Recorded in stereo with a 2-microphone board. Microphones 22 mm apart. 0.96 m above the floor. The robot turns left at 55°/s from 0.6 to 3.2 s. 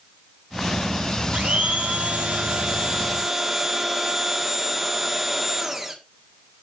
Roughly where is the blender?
Ahead right.